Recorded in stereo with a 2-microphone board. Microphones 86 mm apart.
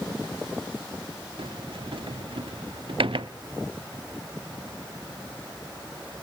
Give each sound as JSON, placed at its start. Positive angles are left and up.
{"t": 1.4, "sound": "a sliding door", "side_deg": -80, "distance_m": 0.7}